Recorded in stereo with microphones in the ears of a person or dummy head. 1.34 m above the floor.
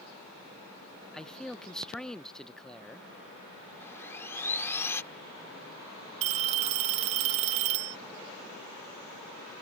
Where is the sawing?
15° left (ahead or behind).